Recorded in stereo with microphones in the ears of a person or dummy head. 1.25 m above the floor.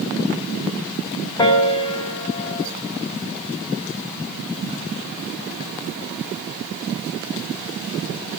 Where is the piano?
20° left (ahead or behind), 0.7 m.